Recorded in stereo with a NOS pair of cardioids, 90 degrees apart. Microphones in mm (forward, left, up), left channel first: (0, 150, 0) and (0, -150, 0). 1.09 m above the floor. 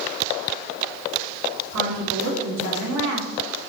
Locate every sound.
1.7 s a woman speaking: 60° right, 2.5 m